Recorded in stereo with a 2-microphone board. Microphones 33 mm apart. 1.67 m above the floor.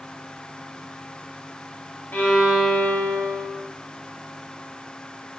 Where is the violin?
70° left (ahead or behind), 2.5 m.